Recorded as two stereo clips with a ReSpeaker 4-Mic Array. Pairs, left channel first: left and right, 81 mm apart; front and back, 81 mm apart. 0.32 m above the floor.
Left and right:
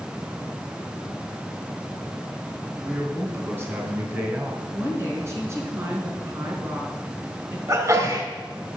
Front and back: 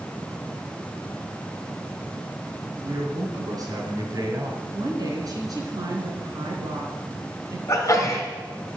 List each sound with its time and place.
2.8 s a man speaking: 145° right, 4 m
4.7 s a woman speaking: 145° right, 3.5 m
7.7 s a sneeze: 45° right, 3 m